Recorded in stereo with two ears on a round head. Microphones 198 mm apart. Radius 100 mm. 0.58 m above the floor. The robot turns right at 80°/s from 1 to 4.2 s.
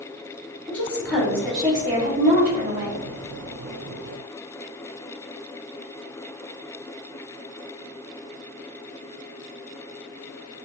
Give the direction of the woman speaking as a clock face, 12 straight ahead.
6 o'clock.